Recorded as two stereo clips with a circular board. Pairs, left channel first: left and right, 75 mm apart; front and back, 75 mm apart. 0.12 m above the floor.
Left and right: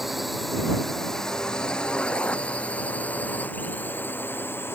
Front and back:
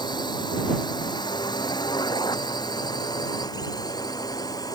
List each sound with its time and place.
0.0 s a drone: straight ahead; by 4.8 s 30° left